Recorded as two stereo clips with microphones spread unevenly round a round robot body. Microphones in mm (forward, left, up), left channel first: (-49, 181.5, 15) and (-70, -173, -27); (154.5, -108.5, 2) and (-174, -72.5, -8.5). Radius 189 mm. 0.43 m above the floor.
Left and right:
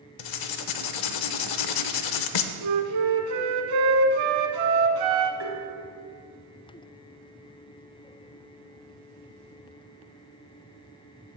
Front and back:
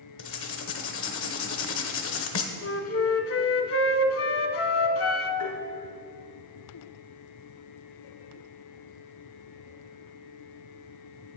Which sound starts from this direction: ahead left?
Writing, at 0.2 s.